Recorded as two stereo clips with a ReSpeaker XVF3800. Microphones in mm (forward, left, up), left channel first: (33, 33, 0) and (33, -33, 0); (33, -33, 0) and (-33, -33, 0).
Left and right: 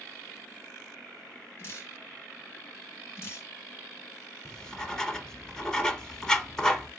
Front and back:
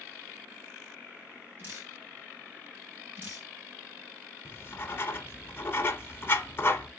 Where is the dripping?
130° left, 2.5 m.